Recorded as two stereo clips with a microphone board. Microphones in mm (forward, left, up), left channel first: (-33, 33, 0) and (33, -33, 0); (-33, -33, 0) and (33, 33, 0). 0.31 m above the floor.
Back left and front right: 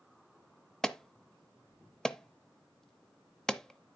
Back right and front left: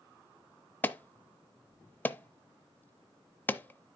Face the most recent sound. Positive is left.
turn(degrees=-150)